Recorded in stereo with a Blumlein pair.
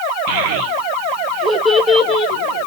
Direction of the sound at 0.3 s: 50° right.